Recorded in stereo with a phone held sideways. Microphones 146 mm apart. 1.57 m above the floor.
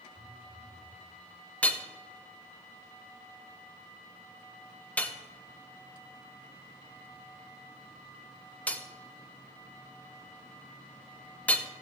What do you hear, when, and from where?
0.1 s a phone buzzing: 40° right (ahead or behind), 4.5 m
1.6 s hammering: 10° left (ahead or behind), 1.0 m